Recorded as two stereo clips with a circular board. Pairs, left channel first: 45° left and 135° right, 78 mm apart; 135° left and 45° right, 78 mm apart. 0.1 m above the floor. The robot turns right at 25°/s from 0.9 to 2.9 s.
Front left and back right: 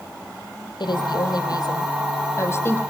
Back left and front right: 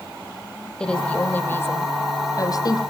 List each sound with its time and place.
0.8 s a woman speaking: 60° left, 4 m; by 2.8 s 105° left, 4 m